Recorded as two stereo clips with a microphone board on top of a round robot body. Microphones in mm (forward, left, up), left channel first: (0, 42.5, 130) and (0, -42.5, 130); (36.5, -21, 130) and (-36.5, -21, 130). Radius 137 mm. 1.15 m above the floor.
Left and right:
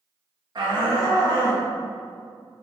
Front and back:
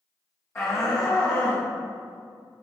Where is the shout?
55° right, 1.5 m; by 1.6 s 25° right, 3 m.